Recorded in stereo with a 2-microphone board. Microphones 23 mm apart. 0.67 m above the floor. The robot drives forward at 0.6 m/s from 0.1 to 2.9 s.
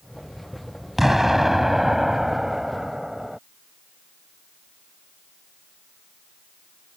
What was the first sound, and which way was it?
An explosion, 15° right (ahead or behind).